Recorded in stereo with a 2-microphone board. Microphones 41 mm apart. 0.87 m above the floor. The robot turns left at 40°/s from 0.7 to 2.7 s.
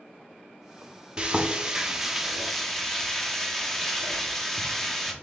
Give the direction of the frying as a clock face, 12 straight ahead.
4 o'clock.